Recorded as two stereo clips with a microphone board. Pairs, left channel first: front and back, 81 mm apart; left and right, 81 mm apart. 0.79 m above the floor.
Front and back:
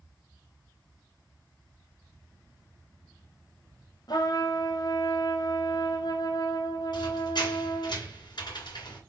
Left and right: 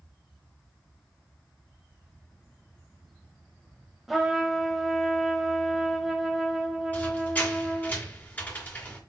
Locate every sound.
4.1 s a trumpet: straight ahead, 0.9 m
6.9 s a squeak: 20° left, 1.9 m